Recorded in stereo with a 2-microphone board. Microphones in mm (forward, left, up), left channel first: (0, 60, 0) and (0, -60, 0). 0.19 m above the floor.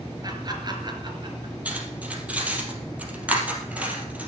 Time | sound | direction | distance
0.2 | laughter | 35° right (ahead or behind) | 3.5 m
1.6 | cutlery clinking | 10° right (ahead or behind) | 3 m